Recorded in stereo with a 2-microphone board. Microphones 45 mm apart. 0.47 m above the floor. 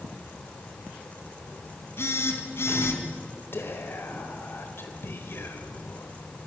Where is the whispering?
60° left (ahead or behind), 1.9 m.